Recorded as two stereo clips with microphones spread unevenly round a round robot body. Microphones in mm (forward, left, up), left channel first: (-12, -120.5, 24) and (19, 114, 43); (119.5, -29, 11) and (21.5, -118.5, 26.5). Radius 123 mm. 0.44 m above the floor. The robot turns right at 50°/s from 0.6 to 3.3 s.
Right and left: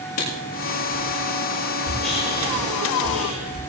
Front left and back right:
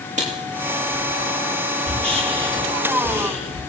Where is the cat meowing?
I don't hear a cat meowing.